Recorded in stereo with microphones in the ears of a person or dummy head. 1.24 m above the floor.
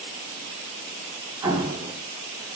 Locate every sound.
1.4 s an explosion: 20° right (ahead or behind), 3.5 m